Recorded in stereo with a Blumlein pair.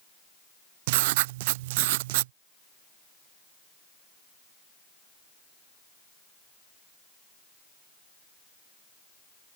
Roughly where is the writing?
Ahead right.